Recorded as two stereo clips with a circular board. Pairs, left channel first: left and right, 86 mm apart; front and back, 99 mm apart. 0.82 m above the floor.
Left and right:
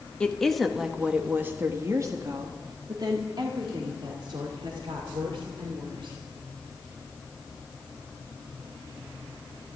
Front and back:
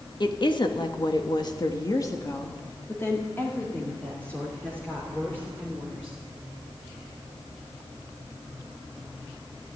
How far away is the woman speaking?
About 1.4 m.